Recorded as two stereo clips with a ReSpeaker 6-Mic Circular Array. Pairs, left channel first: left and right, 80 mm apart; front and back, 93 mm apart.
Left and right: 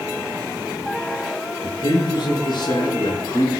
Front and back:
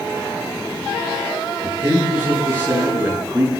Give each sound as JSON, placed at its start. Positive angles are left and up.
{"t": 1.6, "sound": "a man speaking", "azimuth_deg": 110, "distance_m": 5.0}